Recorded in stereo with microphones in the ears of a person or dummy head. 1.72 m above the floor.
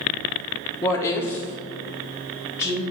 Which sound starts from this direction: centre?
A woman speaking, at 0.8 s.